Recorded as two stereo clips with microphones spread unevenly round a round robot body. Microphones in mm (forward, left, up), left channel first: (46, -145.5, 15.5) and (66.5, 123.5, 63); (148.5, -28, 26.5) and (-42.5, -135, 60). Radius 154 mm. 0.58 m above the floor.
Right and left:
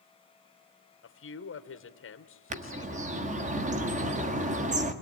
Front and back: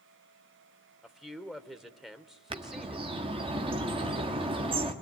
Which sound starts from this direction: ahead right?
A man speaking, at 1.0 s.